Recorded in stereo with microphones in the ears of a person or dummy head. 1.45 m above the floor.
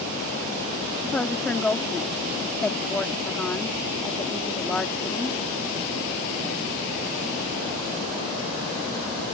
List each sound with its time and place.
1.0 s a woman speaking: 5° left (ahead or behind)